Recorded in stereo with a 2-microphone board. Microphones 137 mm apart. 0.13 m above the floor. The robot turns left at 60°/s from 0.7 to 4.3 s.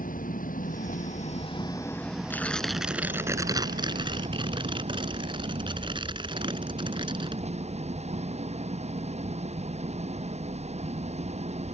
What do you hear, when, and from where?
0.0 s an engine running: 90° left; by 11.8 s 125° right
2.3 s tearing paper: 25° left; by 7.4 s 95° right